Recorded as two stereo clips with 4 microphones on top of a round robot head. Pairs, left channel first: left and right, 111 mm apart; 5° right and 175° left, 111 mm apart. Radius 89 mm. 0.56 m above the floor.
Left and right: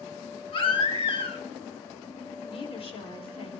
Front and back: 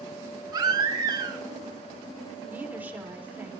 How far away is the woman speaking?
About 2 m.